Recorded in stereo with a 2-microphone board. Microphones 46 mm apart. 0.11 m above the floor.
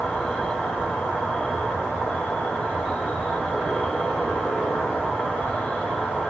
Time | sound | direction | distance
0.0 | an insect | 25° left (ahead or behind) | 1.8 m